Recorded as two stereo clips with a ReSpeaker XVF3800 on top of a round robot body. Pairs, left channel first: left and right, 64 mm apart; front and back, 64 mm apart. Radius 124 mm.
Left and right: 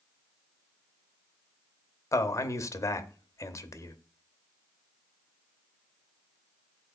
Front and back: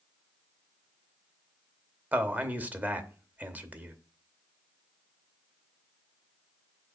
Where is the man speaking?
120° left, 0.9 m.